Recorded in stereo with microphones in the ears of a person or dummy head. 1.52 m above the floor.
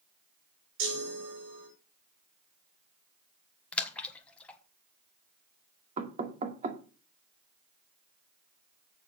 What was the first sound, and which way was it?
A chime, 75° right (ahead or behind).